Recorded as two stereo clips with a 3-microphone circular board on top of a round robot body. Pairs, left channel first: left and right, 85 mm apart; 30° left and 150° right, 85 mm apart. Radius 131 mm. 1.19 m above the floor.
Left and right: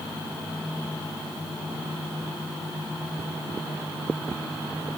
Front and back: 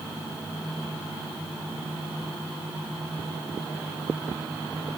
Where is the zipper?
No zipper in this recording.